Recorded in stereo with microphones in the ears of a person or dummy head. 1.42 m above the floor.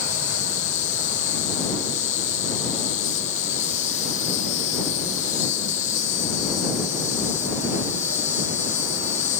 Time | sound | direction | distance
0.0 | an insect | 35° left (ahead or behind) | ?